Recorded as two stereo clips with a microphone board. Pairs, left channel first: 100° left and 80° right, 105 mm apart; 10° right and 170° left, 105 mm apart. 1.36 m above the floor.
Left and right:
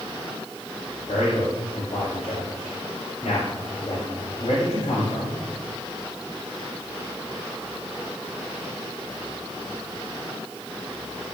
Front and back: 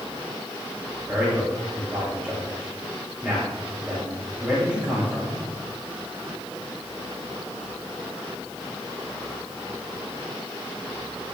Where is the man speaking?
85° left, 7.5 m.